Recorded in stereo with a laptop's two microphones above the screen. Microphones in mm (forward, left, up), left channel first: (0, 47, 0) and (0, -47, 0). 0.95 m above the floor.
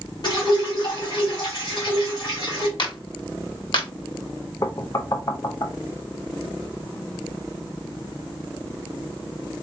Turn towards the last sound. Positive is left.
turn(degrees=40)  # may be behind; listen again after turning